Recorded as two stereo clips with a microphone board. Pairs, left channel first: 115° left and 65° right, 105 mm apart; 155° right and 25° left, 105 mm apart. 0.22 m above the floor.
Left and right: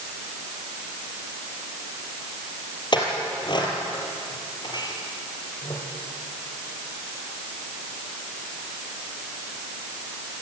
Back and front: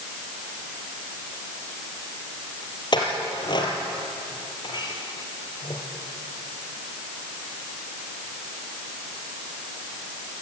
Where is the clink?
160° left, 4 m.